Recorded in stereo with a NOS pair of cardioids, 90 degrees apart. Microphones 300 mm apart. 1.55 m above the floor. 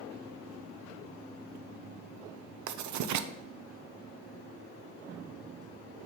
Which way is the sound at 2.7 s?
70° right.